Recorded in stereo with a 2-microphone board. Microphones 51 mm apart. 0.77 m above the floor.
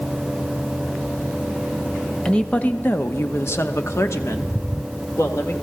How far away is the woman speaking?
About 1.0 m.